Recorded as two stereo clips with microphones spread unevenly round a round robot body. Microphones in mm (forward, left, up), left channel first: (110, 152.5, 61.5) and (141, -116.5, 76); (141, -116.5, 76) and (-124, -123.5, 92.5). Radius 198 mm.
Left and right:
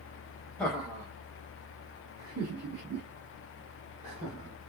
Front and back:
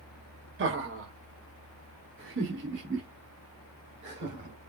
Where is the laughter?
175° left, 1.1 m; by 4.5 s 130° right, 2.5 m.